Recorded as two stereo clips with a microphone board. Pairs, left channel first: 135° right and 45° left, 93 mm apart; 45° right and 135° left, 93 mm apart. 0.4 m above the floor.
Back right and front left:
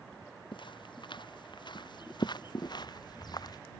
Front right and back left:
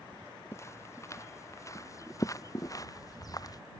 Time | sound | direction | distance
0.5 | footsteps | 105° right | ?